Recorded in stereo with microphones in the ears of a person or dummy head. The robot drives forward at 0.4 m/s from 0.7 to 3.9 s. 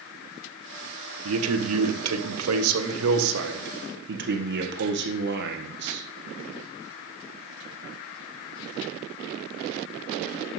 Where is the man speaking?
80° right, 1.3 m; by 6.0 s 55° right (ahead or behind), 1.5 m.